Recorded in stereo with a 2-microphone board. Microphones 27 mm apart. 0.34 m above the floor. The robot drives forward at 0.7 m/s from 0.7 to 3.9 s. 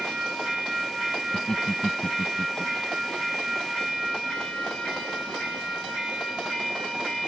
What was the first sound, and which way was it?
Laughter, 20° left (ahead or behind).